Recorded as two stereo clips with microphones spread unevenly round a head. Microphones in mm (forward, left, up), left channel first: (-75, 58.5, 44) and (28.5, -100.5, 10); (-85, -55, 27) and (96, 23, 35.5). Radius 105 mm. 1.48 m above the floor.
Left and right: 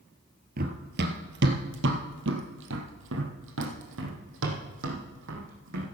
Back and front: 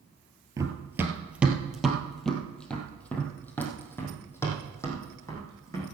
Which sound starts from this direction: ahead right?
Running footsteps, at 0.6 s.